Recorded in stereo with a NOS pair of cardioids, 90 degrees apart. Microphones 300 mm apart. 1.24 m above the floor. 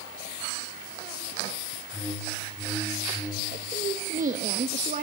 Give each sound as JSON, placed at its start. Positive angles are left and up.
{"t": 1.9, "sound": "a whoosh", "azimuth_deg": -5, "distance_m": 3.5}
{"t": 3.5, "sound": "a woman speaking", "azimuth_deg": -25, "distance_m": 1.4}